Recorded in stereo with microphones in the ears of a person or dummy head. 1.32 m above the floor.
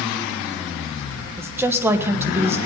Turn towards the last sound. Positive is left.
turn(degrees=-10)  # may be behind; listen again after turning